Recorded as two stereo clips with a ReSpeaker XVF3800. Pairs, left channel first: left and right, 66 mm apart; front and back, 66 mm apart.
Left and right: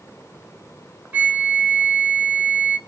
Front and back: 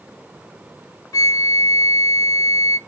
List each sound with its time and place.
1.1 s a flute: 25° right, 0.6 m